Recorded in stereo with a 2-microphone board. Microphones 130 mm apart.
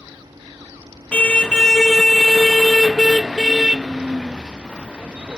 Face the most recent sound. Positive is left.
turn(degrees=-10)  # may be behind; listen again after turning